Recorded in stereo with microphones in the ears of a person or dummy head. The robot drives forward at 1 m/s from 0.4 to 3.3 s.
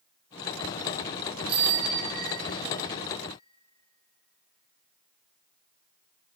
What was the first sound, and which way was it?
A bicycle bell, 35° right (ahead or behind).